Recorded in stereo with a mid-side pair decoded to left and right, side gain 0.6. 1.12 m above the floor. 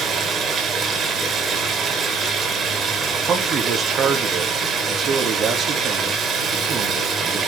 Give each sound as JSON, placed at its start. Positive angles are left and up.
{"t": 0.0, "sound": "running water", "azimuth_deg": -40, "distance_m": 3.5}
{"t": 3.3, "sound": "a man speaking", "azimuth_deg": -45, "distance_m": 2.5}